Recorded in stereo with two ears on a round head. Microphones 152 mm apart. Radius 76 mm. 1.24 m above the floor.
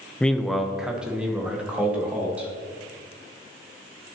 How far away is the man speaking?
About 0.5 m.